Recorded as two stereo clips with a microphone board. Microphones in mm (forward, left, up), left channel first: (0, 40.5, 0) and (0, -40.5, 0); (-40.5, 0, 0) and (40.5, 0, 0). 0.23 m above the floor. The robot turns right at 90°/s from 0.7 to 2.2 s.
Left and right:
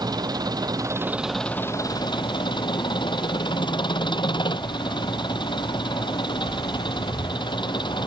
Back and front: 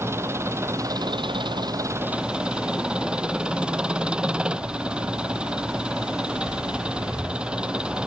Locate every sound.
0.0 s an engine running: 55° right; by 8.1 s 80° left